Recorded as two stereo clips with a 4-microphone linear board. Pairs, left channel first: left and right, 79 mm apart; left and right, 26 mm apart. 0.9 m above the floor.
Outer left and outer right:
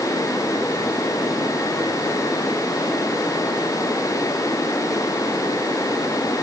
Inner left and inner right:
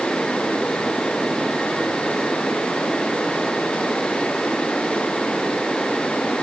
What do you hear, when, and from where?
Only background noise.